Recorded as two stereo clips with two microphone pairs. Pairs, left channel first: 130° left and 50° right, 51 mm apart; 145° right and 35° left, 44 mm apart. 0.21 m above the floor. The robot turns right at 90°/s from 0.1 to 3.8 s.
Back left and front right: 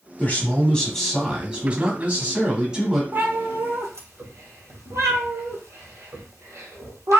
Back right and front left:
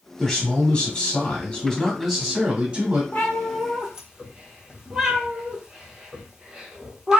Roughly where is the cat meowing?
Right.